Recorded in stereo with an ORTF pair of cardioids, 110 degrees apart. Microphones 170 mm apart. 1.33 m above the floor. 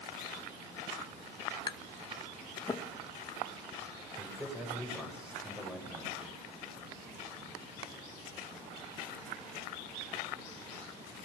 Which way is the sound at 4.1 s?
5° right.